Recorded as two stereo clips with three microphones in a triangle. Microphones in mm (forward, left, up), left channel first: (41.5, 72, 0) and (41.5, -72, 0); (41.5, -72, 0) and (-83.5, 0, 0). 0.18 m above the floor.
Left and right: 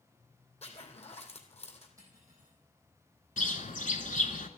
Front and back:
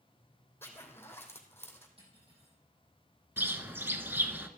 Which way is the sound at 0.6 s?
45° left.